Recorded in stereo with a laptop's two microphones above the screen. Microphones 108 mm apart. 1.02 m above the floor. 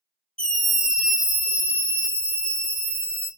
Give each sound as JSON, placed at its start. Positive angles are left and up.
{"t": 0.4, "sound": "a scream", "side_deg": 10, "distance_m": 0.7}